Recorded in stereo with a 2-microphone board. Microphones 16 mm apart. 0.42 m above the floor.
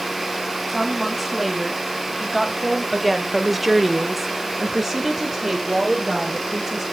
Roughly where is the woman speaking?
Centre.